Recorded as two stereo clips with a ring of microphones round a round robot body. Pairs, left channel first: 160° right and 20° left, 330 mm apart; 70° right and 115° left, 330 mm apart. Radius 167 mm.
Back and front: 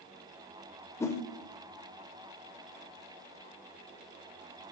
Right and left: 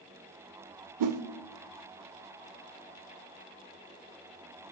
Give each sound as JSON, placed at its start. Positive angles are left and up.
{"t": 1.0, "sound": "a whoosh", "azimuth_deg": 120, "distance_m": 0.5}